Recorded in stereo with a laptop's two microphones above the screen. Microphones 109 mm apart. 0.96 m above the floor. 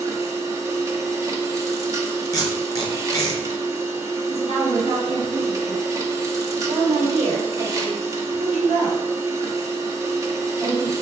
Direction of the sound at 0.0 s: 30° right (ahead or behind).